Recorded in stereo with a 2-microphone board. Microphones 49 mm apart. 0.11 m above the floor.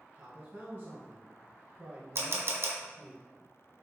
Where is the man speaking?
40° right (ahead or behind), 1.6 m.